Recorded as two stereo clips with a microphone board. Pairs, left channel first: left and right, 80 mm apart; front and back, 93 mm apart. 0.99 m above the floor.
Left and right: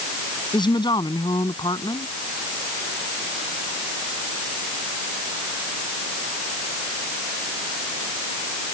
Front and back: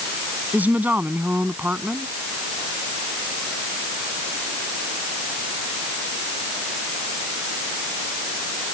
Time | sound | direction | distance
0.5 | a woman speaking | 110° left | ?